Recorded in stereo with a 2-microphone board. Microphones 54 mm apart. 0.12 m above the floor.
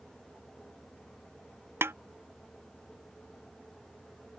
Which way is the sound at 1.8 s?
50° right (ahead or behind).